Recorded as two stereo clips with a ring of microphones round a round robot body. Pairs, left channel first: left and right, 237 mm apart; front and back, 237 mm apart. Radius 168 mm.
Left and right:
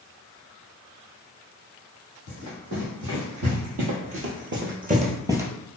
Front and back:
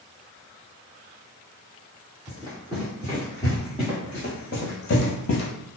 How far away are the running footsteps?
About 1.5 m.